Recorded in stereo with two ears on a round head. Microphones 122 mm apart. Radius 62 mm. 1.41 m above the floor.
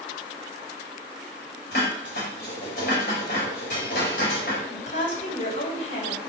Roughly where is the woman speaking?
Left.